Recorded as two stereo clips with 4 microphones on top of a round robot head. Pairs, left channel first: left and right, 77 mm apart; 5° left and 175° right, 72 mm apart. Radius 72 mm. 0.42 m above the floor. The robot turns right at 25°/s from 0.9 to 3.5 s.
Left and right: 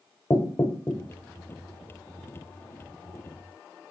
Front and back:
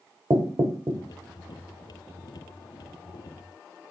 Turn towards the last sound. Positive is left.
turn(degrees=-145)